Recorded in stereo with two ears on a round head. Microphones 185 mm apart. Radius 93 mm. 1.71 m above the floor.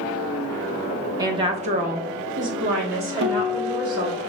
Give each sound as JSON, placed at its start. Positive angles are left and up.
{"t": 1.2, "sound": "a woman speaking", "side_deg": -15, "distance_m": 0.8}
{"t": 3.2, "sound": "a guitar", "side_deg": -55, "distance_m": 0.8}